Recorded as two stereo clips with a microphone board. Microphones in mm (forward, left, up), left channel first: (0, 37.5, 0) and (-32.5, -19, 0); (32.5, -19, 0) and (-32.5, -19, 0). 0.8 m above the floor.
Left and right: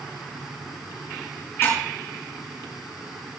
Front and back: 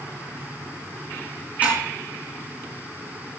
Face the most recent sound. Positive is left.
turn(degrees=115)